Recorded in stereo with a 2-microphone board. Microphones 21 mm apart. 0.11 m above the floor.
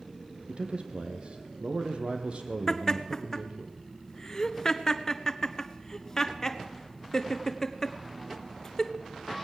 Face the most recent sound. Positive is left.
turn(degrees=20)  # may be behind; listen again after turning